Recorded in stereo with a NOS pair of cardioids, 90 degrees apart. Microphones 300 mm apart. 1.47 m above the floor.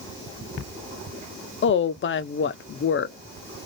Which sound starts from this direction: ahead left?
A woman speaking, at 1.6 s.